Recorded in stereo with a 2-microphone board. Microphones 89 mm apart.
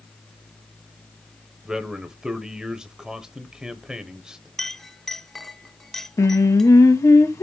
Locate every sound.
1.6 s a man speaking: 10° right (ahead or behind), 0.9 m
4.6 s a clink: 5° left (ahead or behind), 1.1 m
6.2 s singing: 35° left (ahead or behind), 0.7 m